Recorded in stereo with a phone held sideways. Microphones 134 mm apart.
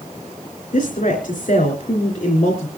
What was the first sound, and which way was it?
A woman speaking, 75° left (ahead or behind).